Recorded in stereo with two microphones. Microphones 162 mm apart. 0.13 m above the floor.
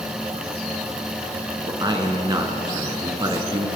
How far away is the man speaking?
About 1.3 m.